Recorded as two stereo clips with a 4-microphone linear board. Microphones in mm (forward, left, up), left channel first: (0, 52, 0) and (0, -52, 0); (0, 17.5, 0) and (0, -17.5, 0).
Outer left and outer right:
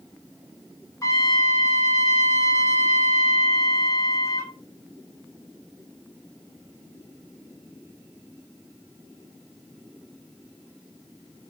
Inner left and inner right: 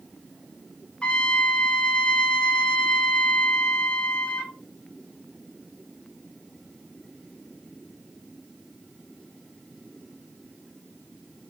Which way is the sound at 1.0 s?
30° left (ahead or behind).